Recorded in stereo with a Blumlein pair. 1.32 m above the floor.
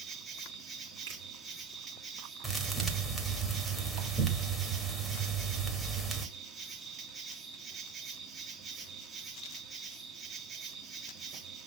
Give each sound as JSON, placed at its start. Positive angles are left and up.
{"t": 0.0, "sound": "an insect", "azimuth_deg": -20, "distance_m": 1.7}
{"t": 1.1, "sound": "a finger snap", "azimuth_deg": -60, "distance_m": 2.5}
{"t": 2.4, "sound": "a thud", "azimuth_deg": -5, "distance_m": 1.8}